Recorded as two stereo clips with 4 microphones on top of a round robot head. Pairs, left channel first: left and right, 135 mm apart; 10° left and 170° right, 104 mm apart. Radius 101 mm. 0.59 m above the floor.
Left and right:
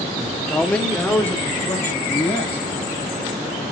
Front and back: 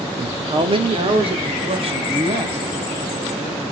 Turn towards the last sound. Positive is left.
turn(degrees=165)